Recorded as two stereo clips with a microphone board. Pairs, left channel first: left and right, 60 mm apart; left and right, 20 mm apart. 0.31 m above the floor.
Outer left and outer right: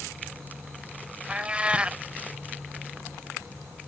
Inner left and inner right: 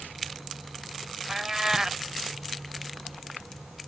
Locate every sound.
1.3 s a cat meowing: 20° right (ahead or behind)